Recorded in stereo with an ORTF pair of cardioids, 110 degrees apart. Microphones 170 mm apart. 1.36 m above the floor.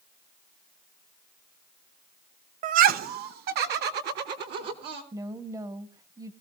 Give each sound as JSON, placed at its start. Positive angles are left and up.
{"t": 2.6, "sound": "laughter", "azimuth_deg": -50, "distance_m": 0.5}
{"t": 5.1, "sound": "a woman speaking", "azimuth_deg": -20, "distance_m": 1.4}